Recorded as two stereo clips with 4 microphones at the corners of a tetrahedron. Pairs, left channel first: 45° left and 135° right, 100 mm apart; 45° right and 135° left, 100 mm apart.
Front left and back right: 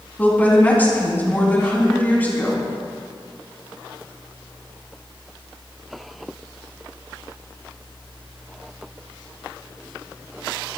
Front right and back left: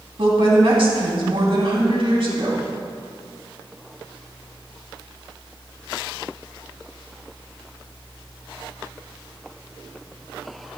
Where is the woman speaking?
115° left, 3 m.